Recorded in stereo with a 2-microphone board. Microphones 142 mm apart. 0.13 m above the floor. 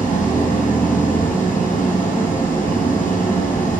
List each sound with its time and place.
0.0 s an engine running: 70° left (ahead or behind), 2.0 m